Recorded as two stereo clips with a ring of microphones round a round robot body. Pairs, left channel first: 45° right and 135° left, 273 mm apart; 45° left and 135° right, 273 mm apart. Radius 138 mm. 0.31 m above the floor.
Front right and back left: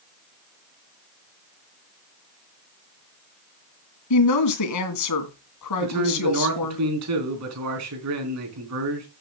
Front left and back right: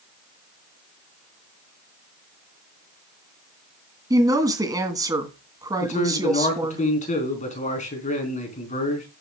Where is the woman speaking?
60° right, 2.5 m.